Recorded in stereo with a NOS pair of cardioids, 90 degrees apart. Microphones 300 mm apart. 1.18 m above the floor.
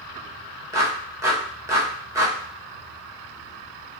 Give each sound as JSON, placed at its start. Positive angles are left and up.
{"t": 0.7, "sound": "a clap", "azimuth_deg": -10, "distance_m": 1.3}